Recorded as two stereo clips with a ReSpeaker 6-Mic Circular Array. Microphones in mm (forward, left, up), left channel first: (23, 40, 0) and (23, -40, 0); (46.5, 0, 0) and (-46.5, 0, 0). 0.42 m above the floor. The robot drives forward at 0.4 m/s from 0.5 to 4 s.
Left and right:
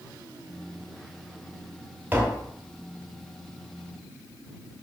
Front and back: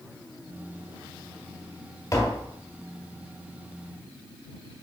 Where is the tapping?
35° right, 1.9 m; by 2.5 s 40° right, 1.8 m.